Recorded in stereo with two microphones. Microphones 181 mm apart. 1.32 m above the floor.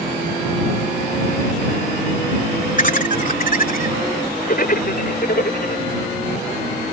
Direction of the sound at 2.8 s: 45° left (ahead or behind).